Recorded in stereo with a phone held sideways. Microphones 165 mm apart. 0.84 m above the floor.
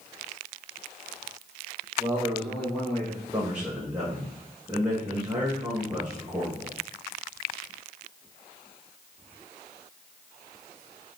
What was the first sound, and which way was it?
A man speaking, 20° right (ahead or behind).